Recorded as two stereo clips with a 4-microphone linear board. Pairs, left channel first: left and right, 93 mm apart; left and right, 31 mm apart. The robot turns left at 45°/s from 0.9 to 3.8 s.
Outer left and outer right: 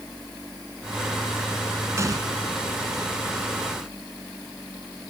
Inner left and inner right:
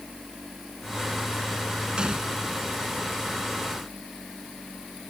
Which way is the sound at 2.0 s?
30° right (ahead or behind).